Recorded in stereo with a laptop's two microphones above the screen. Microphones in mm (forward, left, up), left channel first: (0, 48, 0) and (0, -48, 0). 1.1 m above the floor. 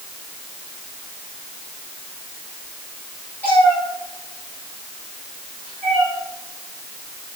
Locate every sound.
3.4 s a cat meowing: 20° left (ahead or behind), 8.5 m; by 6.1 s 5° right (ahead or behind), 8 m